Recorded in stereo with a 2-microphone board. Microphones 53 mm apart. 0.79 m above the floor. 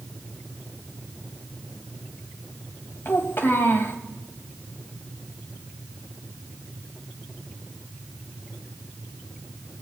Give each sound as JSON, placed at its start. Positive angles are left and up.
{"t": 3.0, "sound": "a child speaking", "side_deg": 45, "distance_m": 3.0}